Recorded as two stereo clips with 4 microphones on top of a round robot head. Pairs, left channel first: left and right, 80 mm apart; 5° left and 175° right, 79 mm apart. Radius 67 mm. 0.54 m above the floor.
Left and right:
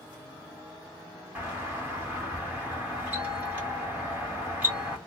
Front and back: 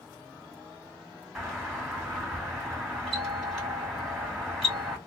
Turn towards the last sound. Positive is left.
turn(degrees=-75)